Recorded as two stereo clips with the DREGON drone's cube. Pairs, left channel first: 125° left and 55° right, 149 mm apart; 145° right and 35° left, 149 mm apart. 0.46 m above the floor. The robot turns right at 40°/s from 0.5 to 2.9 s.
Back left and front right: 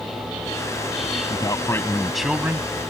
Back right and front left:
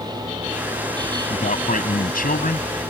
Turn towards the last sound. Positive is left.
turn(degrees=-115)